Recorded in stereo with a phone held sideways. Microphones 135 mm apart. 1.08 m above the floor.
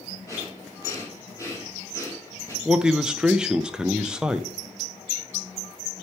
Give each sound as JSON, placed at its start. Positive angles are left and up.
{"t": 0.3, "sound": "breathing", "side_deg": 25, "distance_m": 2.5}
{"t": 2.6, "sound": "a man speaking", "side_deg": -5, "distance_m": 0.5}